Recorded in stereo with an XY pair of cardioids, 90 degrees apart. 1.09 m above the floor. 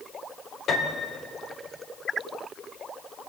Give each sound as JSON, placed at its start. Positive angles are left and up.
{"t": 0.7, "sound": "a piano", "azimuth_deg": 65, "distance_m": 2.5}